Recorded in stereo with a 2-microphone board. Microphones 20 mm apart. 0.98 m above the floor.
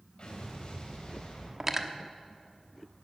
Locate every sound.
0.2 s an explosion: 50° left (ahead or behind), 4 m
1.6 s cutlery clinking: 20° right (ahead or behind), 1.0 m